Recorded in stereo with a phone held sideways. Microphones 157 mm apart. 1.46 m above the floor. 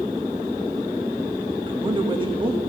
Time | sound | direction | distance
1.7 | a man speaking | 30° right (ahead or behind) | 1.5 m